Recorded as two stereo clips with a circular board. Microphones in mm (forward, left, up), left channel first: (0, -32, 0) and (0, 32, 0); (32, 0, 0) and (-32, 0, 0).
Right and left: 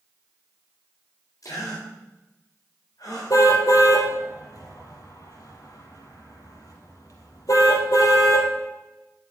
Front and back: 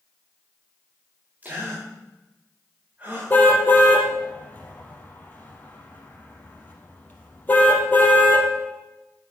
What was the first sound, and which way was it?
A gasp, 115° right.